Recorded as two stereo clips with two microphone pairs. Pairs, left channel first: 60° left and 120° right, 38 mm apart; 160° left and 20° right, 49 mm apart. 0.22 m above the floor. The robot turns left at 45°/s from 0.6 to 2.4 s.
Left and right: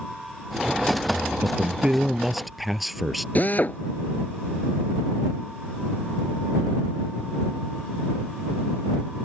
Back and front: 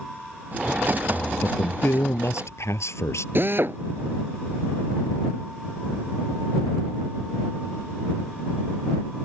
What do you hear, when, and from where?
1.1 s a man speaking: 150° right; by 3.2 s 150° left
3.4 s a drill: 15° left